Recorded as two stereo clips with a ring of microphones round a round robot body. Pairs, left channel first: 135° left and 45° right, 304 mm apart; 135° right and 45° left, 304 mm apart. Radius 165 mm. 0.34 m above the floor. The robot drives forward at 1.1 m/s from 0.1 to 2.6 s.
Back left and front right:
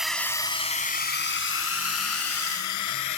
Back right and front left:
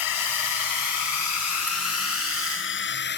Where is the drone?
135° right; by 3.2 s 165° left.